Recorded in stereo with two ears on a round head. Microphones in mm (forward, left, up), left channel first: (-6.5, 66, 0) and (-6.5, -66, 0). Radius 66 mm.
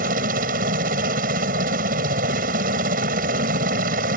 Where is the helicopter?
65° right (ahead or behind).